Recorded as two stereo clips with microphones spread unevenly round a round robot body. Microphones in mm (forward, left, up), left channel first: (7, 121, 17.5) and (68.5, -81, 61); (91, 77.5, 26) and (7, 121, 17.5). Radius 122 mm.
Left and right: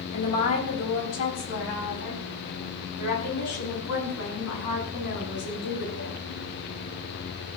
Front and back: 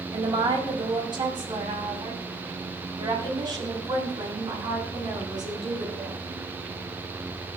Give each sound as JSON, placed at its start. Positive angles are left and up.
{"t": 0.1, "sound": "a woman speaking", "azimuth_deg": 125, "distance_m": 4.5}